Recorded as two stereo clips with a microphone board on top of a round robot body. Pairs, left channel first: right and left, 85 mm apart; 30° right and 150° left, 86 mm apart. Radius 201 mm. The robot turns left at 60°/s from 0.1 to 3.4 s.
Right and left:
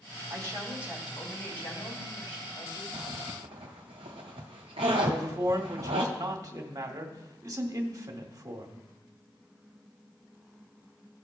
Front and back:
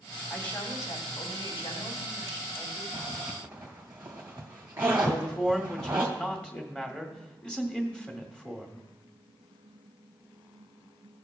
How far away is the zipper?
About 0.6 m.